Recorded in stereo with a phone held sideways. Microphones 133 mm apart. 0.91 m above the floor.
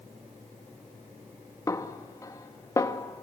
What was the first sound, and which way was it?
A snare drum, 25° left (ahead or behind).